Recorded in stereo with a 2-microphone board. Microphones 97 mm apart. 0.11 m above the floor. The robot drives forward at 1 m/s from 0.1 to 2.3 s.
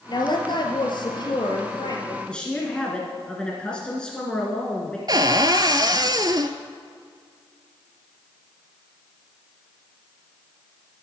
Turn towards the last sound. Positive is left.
turn(degrees=-45)  # may be behind; listen again after turning